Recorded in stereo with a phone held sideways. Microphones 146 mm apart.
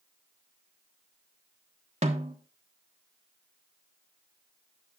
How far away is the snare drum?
About 1.3 m.